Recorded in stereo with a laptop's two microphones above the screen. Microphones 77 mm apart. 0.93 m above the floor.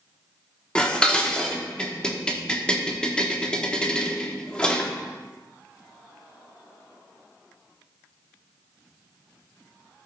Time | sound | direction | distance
0.8 | dishes clattering | 10° left (ahead or behind) | 1.1 m